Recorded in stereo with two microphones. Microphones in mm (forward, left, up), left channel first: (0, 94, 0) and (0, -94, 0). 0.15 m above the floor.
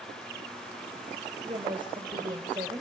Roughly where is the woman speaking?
Right.